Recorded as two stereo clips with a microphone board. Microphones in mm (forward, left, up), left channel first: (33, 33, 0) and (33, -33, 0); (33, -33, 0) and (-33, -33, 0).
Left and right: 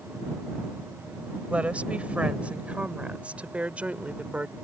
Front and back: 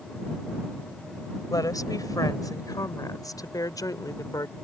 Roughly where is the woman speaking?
Ahead.